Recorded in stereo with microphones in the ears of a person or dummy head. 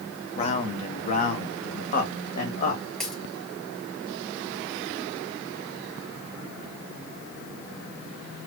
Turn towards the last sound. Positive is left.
turn(degrees=5)  # may be behind; listen again after turning